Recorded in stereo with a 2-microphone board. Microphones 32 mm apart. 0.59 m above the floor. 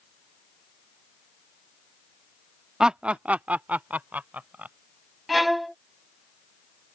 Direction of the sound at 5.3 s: 5° right (ahead or behind).